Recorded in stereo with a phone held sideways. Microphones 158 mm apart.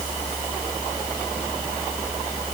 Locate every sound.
Only background noise.